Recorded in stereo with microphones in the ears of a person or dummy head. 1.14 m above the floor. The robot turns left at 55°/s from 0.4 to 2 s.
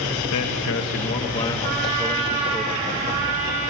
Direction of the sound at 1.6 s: 70° right (ahead or behind).